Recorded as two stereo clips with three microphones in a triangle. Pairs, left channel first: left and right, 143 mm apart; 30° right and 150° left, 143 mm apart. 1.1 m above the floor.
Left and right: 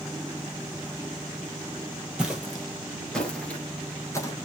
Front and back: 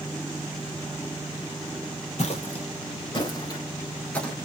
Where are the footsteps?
5° right, 1.8 m; by 4.3 s 50° left, 1.2 m.